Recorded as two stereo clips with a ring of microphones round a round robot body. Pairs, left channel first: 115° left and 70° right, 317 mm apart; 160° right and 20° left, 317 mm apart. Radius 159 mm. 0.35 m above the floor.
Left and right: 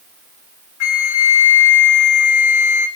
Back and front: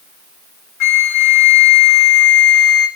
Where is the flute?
160° left, 1.0 m.